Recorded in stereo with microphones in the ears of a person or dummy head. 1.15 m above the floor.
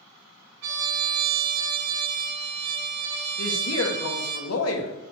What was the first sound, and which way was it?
A trumpet, 60° right (ahead or behind).